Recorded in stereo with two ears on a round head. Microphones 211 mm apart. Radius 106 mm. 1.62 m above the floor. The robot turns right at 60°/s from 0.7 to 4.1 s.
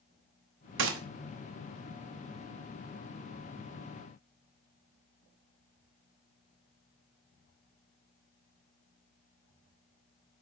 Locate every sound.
0.8 s a gunshot: 55° right (ahead or behind), 1.0 m; by 1.0 s 65° right (ahead or behind), 1.0 m